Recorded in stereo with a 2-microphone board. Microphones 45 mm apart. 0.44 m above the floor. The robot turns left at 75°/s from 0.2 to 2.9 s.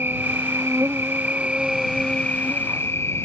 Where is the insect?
60° right; by 3.3 s 100° left.